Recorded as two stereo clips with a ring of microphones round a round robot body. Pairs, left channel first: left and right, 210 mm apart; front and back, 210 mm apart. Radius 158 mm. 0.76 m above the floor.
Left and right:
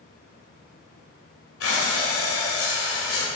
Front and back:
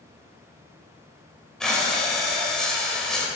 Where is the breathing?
85° left, 2.5 m.